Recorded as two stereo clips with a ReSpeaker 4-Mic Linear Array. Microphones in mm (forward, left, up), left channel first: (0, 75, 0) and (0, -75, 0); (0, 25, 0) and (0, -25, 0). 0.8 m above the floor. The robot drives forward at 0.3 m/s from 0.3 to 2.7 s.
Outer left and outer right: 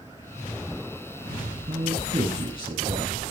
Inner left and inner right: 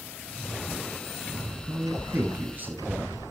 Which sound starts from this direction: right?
A man speaking, at 1.7 s.